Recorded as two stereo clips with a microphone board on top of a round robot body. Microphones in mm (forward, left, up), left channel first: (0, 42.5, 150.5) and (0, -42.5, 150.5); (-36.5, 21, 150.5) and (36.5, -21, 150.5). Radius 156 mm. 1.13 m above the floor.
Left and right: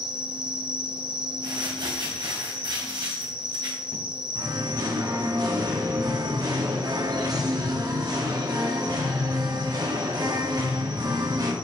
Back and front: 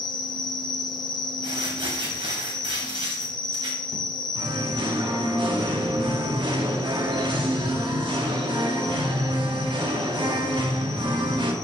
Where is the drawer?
I don't hear a drawer.